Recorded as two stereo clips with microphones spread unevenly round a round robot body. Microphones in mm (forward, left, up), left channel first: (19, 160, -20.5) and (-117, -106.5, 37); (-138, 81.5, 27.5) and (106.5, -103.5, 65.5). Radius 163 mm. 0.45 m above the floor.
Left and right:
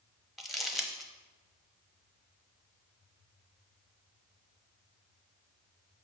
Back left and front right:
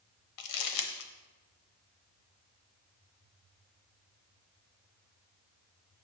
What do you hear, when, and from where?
0.4 s crumpling: 150° left, 0.9 m